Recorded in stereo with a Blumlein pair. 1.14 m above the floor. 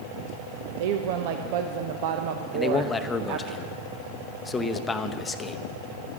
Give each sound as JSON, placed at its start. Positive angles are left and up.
{"t": 0.8, "sound": "a woman speaking", "azimuth_deg": -50, "distance_m": 0.7}
{"t": 2.5, "sound": "a man speaking", "azimuth_deg": 15, "distance_m": 0.8}